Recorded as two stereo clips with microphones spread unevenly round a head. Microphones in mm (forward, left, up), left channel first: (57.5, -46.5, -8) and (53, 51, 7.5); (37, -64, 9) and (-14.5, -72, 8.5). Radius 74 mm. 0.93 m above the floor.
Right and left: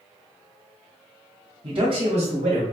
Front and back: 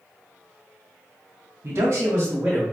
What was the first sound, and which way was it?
A man speaking, 155° left.